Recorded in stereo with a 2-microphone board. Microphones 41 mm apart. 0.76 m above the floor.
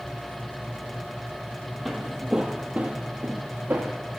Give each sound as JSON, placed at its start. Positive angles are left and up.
{"t": 1.9, "sound": "footsteps", "side_deg": 5, "distance_m": 0.8}